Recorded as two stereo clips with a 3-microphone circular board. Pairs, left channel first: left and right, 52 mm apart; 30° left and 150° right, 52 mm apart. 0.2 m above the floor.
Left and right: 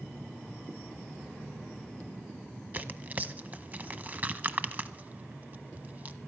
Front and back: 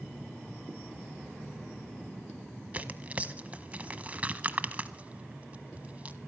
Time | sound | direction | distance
2.7 | tearing paper | 115° right | 0.6 m